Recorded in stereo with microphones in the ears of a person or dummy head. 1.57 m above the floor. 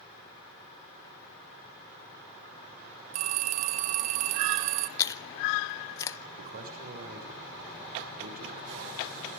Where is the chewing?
15° left (ahead or behind), 0.8 m.